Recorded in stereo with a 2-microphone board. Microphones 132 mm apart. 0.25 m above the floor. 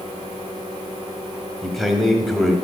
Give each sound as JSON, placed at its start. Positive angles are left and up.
{"t": 1.6, "sound": "a man speaking", "side_deg": 0, "distance_m": 1.1}